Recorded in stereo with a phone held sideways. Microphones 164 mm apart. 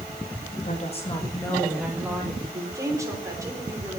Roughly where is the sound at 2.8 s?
Centre.